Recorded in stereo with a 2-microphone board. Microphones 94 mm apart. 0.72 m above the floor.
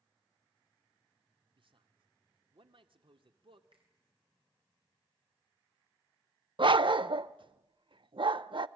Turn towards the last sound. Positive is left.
turn(degrees=-60)  # may be behind; listen again after turning